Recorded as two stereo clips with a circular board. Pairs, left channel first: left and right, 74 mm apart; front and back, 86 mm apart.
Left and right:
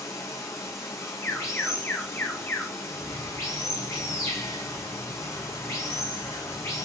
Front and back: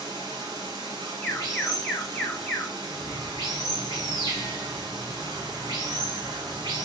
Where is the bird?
90° right, 3 m.